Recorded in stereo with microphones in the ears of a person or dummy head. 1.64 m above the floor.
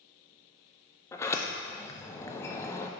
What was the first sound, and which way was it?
A sliding door, 15° left (ahead or behind).